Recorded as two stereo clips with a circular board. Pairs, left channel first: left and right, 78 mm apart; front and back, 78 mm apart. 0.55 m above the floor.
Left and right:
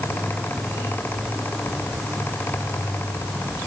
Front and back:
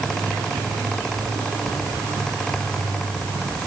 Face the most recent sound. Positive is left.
No sound to turn to.